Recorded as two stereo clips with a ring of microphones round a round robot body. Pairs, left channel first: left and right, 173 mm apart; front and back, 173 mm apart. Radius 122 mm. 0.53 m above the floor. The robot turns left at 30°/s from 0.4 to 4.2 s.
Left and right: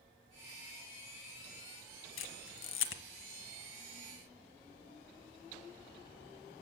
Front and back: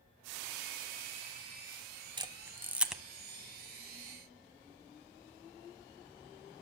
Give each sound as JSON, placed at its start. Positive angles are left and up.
{"t": 2.2, "sound": "a camera shutter", "azimuth_deg": 115, "distance_m": 1.2}